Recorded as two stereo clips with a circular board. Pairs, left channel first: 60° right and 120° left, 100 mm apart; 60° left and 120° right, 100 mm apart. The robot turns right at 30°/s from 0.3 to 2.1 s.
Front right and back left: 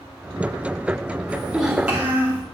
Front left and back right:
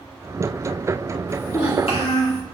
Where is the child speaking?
25° left, 2 m; by 2.4 s 50° left, 2 m.